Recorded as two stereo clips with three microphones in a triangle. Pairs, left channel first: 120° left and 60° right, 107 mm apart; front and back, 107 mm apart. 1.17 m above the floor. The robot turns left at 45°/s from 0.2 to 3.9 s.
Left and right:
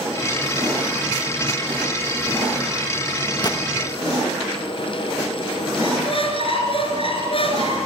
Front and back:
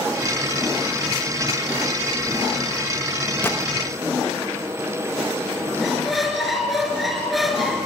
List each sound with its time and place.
3.4 s a gunshot: 70° left, 1.4 m; by 3.6 s 65° left, 1.4 m
5.8 s a squeak: 90° left, 3.5 m